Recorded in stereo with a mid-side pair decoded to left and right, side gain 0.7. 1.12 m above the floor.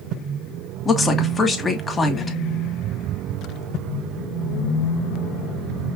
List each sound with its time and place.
0.8 s a woman speaking: 20° left, 1.6 m